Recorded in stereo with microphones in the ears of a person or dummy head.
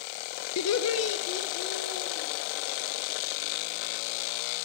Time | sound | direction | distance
0.6 | laughter | 75° left (ahead or behind) | 0.6 m